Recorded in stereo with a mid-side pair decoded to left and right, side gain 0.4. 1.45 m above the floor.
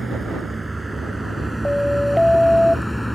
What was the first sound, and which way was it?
A vehicle, 20° right.